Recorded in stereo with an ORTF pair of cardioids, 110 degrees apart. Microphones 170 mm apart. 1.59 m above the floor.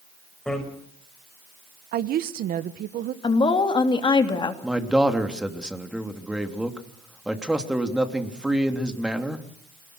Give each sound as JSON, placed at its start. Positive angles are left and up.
{"t": 0.5, "sound": "a bicycle bell", "azimuth_deg": 5, "distance_m": 6.0}
{"t": 1.9, "sound": "a woman speaking", "azimuth_deg": -60, "distance_m": 1.5}
{"t": 3.2, "sound": "a woman speaking", "azimuth_deg": 30, "distance_m": 3.0}
{"t": 4.6, "sound": "a man speaking", "azimuth_deg": -5, "distance_m": 3.0}